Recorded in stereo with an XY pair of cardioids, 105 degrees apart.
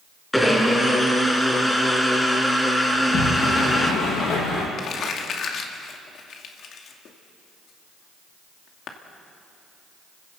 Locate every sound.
0.3 s a blender: 5° left, 3.5 m
2.9 s a sliding door: 65° left, 7 m
4.8 s crumpling: 60° left, 2.5 m